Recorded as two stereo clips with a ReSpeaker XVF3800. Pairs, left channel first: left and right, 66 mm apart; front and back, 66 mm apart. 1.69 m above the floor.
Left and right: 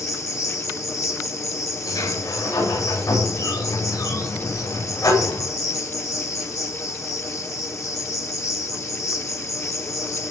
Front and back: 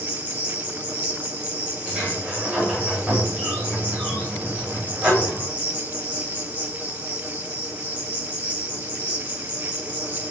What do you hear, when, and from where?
0.0 s an insect: 115° left, 4 m
1.9 s a sliding door: 105° left, 8.5 m